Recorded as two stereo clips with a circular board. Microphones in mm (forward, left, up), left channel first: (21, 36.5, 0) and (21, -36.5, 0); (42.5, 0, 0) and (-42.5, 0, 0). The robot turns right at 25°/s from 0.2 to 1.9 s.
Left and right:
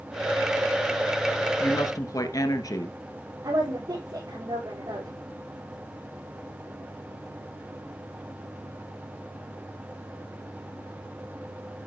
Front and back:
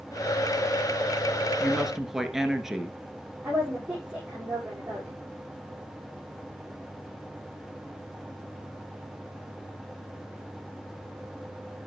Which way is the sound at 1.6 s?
85° left.